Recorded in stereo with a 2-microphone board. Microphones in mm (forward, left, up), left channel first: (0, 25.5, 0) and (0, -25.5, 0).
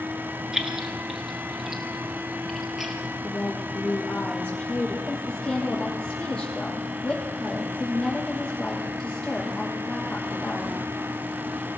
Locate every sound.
0.5 s keys jangling: 10° right (ahead or behind), 2.5 m; by 3.0 s 5° right (ahead or behind), 4 m
3.2 s a woman speaking: 15° left (ahead or behind), 7 m
5.1 s a woman speaking: 10° left (ahead or behind), 8.5 m